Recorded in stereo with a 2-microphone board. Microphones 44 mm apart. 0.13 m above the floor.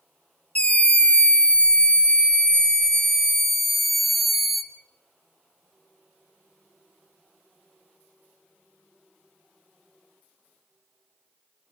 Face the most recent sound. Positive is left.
turn(degrees=-5)  # may be behind; listen again after turning